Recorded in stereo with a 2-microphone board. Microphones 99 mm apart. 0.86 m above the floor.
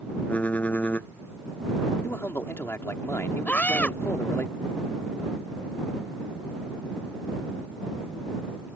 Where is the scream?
15° left (ahead or behind).